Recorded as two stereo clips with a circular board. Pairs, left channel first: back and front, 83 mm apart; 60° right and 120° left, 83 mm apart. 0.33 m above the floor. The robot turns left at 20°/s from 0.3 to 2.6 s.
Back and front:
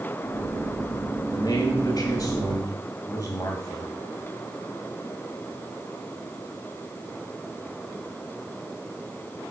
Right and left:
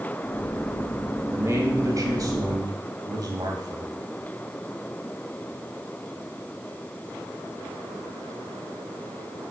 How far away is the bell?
No bell in this recording.